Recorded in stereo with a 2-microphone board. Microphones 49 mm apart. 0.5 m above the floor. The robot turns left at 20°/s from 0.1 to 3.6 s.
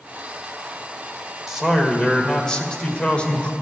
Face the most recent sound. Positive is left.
turn(degrees=145)